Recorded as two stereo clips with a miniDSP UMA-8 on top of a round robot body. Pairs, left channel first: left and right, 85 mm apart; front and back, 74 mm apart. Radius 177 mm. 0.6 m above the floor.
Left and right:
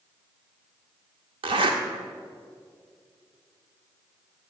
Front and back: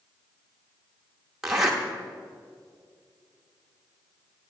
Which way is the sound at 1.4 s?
95° right.